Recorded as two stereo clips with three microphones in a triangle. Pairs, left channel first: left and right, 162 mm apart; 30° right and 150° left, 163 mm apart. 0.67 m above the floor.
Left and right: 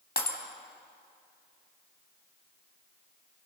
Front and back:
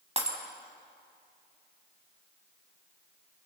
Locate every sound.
0.2 s breaking glass: 105° left, 2.5 m